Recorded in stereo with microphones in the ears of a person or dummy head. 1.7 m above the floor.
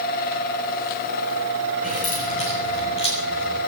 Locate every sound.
1.8 s keys jangling: 40° left (ahead or behind), 6 m; by 3.6 s 25° left (ahead or behind), 7.5 m